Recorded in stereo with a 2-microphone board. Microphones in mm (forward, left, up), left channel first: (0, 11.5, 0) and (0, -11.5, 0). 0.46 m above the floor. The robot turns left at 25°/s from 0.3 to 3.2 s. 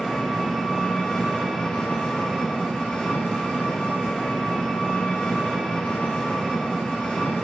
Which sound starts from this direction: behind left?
An engine running, at 0.0 s.